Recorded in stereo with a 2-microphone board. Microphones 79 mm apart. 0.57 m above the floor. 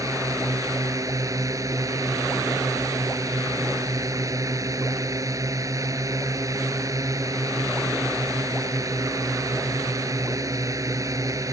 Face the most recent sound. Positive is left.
turn(degrees=-45)  # may be behind; listen again after turning